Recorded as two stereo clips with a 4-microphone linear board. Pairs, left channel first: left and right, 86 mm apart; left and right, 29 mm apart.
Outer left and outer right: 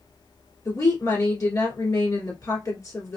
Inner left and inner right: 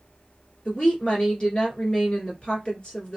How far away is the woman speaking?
About 1.7 m.